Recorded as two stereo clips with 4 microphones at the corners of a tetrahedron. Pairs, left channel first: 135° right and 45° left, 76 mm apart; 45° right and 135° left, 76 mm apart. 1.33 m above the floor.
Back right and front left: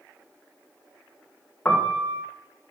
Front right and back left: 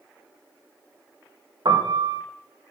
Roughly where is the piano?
Behind left.